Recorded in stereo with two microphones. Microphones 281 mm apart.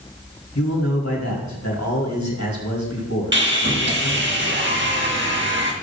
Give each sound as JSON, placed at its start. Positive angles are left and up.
{"t": 0.6, "sound": "a man speaking", "side_deg": 75, "distance_m": 4.5}
{"t": 3.3, "sound": "sawing", "side_deg": -40, "distance_m": 1.6}